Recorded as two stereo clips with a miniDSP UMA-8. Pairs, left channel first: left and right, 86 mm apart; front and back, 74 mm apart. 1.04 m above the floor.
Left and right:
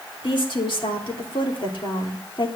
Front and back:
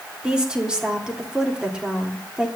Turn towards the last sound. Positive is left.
turn(degrees=100)